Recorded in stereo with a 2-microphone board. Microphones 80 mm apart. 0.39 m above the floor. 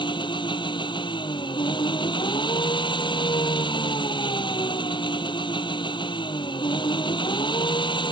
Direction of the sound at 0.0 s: 75° left (ahead or behind).